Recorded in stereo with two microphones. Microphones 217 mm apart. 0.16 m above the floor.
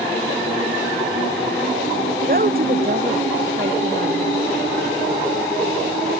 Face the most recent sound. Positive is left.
turn(degrees=-45)  # may be behind; listen again after turning